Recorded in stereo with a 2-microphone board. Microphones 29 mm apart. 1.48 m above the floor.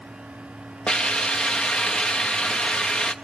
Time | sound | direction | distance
0.9 | a hiss | 45° left (ahead or behind) | 0.9 m